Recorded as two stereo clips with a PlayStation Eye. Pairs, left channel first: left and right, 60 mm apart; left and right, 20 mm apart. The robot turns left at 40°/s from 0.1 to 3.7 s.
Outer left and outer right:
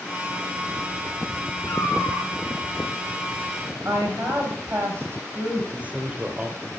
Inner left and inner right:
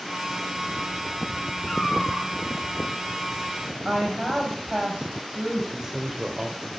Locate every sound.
1.7 s a cat meowing: 55° left (ahead or behind), 3.5 m; by 2.3 s 30° left (ahead or behind), 3.5 m
3.9 s a woman speaking: 40° right (ahead or behind), 4.5 m
5.7 s a man speaking: 25° right (ahead or behind), 2 m